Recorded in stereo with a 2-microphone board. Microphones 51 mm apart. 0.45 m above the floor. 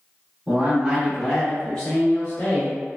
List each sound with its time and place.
0.5 s a man speaking: 30° right (ahead or behind), 1.0 m; by 2.8 s 40° left (ahead or behind), 1.2 m